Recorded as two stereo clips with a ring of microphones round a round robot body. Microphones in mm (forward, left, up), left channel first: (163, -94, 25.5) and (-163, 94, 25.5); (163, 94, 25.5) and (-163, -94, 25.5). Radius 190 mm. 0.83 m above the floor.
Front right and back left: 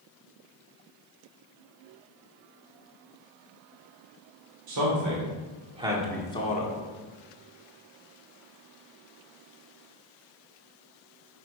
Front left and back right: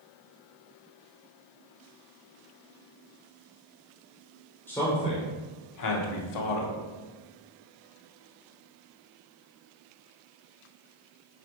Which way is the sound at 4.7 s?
115° left.